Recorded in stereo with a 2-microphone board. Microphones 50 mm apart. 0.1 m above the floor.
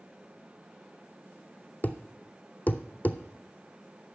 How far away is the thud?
About 0.8 m.